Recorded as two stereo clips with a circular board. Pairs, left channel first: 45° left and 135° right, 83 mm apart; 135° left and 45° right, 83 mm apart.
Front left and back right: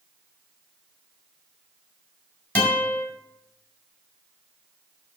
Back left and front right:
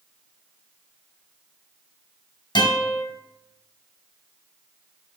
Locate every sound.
2.5 s a guitar: 115° left, 5 m